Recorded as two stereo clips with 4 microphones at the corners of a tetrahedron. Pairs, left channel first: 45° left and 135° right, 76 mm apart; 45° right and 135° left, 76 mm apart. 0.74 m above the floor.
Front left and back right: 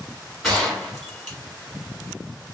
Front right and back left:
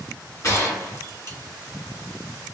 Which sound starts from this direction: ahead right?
A gunshot, at 0.4 s.